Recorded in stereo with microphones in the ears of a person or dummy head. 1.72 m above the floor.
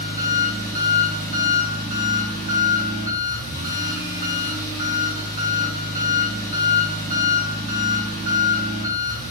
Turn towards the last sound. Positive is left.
turn(degrees=40)  # may be behind; listen again after turning